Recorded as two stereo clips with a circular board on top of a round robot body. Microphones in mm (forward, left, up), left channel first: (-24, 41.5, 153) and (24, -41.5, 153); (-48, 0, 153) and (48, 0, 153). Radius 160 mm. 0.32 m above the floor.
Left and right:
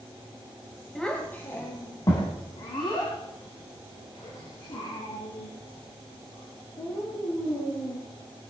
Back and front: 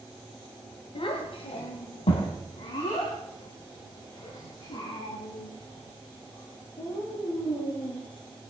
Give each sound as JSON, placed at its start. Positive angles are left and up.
{"t": 0.9, "sound": "a child speaking", "azimuth_deg": -155, "distance_m": 1.9}